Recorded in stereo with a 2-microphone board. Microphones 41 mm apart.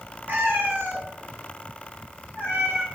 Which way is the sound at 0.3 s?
60° right (ahead or behind).